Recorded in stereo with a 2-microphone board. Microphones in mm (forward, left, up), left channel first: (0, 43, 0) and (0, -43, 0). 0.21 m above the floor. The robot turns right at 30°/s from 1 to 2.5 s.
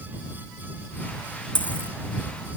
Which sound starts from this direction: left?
A dropped coin, at 1.6 s.